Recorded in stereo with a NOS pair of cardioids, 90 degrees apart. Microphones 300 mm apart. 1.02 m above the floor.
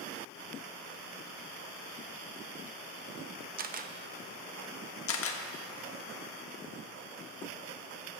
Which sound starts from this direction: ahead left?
A camera shutter, at 5.1 s.